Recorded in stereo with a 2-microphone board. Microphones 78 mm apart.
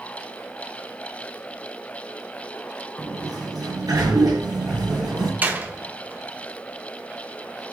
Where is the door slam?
25° right (ahead or behind), 1.3 m.